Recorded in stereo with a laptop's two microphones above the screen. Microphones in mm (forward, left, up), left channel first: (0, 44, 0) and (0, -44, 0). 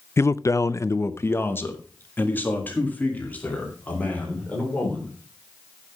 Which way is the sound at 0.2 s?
30° left (ahead or behind).